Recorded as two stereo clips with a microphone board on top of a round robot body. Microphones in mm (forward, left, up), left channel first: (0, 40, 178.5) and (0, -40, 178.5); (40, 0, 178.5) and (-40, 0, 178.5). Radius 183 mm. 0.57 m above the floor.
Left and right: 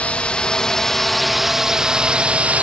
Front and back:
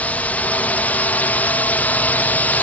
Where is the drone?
40° left; by 2.6 s 45° right.